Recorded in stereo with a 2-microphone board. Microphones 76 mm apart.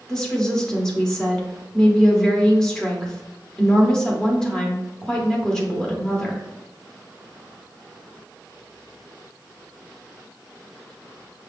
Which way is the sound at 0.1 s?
10° left (ahead or behind).